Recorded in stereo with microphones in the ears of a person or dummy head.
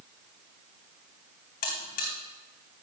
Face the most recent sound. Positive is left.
turn(degrees=40)  # may be behind; listen again after turning